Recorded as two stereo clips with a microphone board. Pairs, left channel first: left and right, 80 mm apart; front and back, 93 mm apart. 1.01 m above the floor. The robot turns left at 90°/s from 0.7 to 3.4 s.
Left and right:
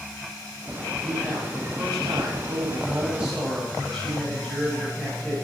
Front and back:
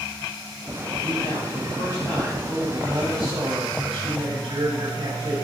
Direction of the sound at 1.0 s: 35° left.